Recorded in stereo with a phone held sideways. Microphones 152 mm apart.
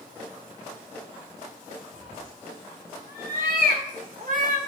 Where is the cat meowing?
70° right (ahead or behind), 2.5 m; by 4.6 s 55° right (ahead or behind), 1.2 m.